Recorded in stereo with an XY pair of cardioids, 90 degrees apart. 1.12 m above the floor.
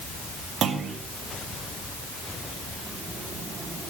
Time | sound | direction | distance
0.6 | a clunk | 65° right | 1.7 m